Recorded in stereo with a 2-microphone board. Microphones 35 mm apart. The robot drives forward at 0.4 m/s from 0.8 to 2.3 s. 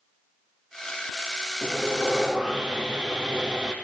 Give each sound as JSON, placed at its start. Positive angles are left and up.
{"t": 1.6, "sound": "sawing", "side_deg": -10, "distance_m": 5.0}